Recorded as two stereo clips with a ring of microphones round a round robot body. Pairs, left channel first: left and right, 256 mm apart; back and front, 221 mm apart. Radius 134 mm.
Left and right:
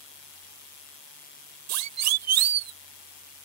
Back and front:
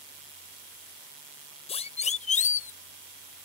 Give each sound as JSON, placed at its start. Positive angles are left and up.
{"t": 1.7, "sound": "a siren", "azimuth_deg": -110}